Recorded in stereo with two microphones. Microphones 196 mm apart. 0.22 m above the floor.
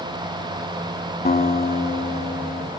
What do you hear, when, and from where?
1.2 s a guitar: 50° left (ahead or behind), 0.7 m